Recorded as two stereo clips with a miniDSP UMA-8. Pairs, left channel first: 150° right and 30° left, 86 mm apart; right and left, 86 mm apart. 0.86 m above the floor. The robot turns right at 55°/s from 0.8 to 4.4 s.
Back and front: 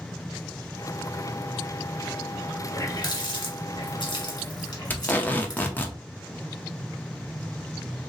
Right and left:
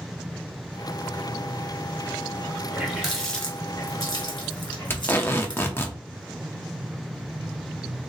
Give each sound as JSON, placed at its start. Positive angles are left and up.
{"t": 2.7, "sound": "a running tap", "azimuth_deg": 160, "distance_m": 1.6}
{"t": 4.9, "sound": "tape being pulled", "azimuth_deg": -105, "distance_m": 0.6}